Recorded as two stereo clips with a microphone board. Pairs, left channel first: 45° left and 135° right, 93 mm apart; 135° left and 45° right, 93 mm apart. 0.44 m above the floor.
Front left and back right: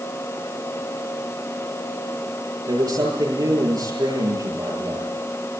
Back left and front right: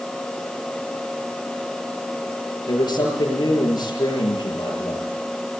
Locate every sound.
2.7 s a man speaking: straight behind, 8 m